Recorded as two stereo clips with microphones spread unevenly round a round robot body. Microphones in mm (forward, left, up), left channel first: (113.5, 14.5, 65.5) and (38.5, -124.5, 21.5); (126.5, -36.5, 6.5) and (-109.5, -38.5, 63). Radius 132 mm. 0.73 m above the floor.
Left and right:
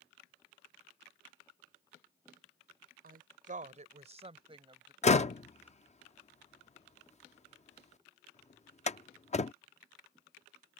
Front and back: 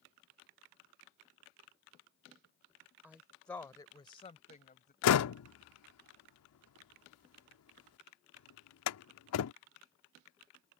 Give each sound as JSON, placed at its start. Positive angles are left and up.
{"t": 3.0, "sound": "a woman speaking", "azimuth_deg": -95}
{"t": 5.0, "sound": "a door slam", "azimuth_deg": 10}